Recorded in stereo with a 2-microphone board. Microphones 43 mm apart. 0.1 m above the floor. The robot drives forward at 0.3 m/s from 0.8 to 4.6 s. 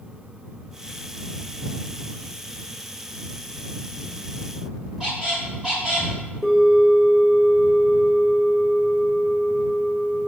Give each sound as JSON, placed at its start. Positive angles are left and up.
{"t": 5.0, "sound": "a squeak", "side_deg": -15, "distance_m": 1.4}
{"t": 6.4, "sound": "a bell", "side_deg": 0, "distance_m": 1.0}